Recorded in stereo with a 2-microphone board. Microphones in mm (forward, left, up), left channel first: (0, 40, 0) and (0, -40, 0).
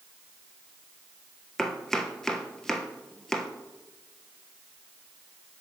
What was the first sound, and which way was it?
Chopping, 5° left (ahead or behind).